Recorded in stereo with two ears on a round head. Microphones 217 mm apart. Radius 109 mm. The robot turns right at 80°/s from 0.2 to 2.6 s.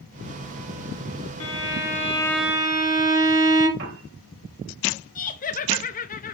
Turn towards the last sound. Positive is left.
turn(degrees=35)  # may be behind; listen again after turning